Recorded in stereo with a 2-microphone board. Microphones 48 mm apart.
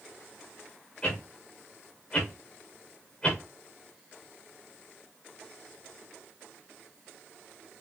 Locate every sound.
1.0 s a whoosh: 25° left (ahead or behind), 4.5 m